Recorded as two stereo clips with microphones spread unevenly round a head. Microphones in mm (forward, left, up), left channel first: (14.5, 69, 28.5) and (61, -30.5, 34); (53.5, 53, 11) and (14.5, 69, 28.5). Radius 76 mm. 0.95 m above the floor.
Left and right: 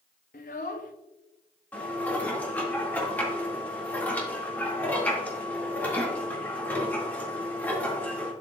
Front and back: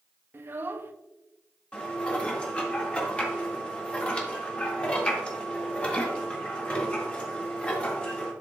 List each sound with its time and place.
0.3 s a child speaking: 145° left, 0.6 m
1.7 s dishes clattering: 40° left, 1.9 m